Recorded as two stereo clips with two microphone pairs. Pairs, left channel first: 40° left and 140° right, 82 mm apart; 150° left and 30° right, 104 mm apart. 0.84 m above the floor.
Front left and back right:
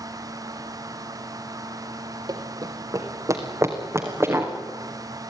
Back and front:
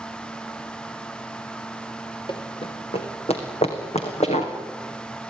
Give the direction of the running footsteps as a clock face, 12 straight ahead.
6 o'clock.